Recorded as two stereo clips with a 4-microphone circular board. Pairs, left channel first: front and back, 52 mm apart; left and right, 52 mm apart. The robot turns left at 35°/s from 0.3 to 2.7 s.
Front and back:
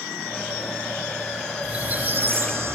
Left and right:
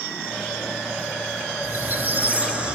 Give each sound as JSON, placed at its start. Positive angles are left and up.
{"t": 1.6, "sound": "a squeak", "azimuth_deg": -120, "distance_m": 0.9}